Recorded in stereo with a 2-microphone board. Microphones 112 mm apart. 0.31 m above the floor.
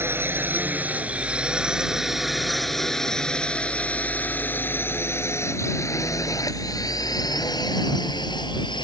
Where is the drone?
20° right (ahead or behind); by 8.8 s 45° left (ahead or behind).